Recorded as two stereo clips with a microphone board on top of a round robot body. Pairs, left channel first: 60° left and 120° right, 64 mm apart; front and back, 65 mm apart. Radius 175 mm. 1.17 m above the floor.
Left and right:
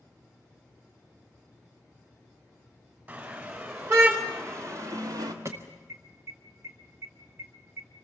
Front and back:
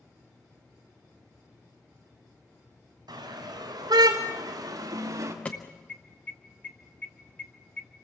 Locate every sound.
3.1 s a car horn: straight behind, 3.5 m; by 5.3 s 140° right, 1.2 m
5.5 s an alarm: 70° right, 0.6 m